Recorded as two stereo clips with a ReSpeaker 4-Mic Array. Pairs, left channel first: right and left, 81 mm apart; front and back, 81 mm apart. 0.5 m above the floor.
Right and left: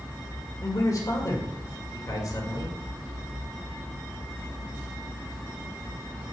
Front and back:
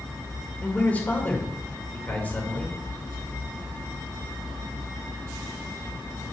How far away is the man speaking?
About 1.8 m.